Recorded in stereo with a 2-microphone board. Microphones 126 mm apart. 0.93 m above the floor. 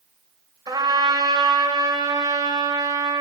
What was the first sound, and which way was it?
A trumpet, 30° right (ahead or behind).